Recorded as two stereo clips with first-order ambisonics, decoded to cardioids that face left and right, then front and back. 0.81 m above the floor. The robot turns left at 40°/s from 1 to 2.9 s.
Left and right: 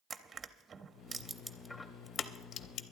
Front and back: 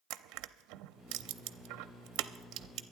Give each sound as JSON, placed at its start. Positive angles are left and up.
{"t": 0.1, "sound": "crushing", "azimuth_deg": -160, "distance_m": 0.6}